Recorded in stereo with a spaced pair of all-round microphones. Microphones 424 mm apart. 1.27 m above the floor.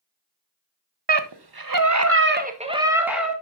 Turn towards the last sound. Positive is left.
turn(degrees=0)  # may be behind; listen again after turning